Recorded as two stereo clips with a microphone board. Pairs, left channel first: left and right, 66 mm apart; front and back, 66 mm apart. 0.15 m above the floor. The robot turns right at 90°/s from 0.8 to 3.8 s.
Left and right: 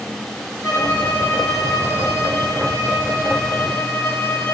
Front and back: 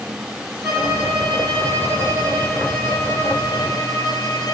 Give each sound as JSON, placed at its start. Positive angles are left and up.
{"t": 0.6, "sound": "a violin", "azimuth_deg": 115, "distance_m": 3.0}